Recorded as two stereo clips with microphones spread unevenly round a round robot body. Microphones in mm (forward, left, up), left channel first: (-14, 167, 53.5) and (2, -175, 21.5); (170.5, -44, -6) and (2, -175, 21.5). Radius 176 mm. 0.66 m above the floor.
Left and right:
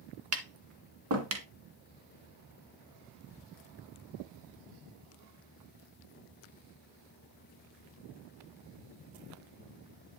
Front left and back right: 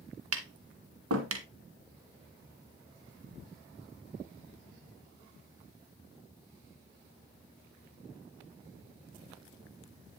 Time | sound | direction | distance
0.3 | tapping | 140° right | 1.9 m